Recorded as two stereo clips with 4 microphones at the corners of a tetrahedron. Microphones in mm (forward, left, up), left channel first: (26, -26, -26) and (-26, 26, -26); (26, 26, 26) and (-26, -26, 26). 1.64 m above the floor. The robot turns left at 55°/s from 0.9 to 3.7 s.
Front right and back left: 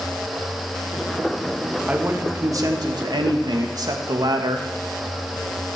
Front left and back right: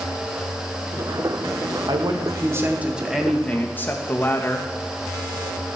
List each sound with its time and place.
1.9 s a man speaking: 150° right, 2 m; by 4.7 s 110° left, 2 m